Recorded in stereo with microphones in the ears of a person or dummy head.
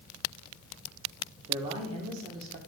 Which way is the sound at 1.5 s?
25° right (ahead or behind).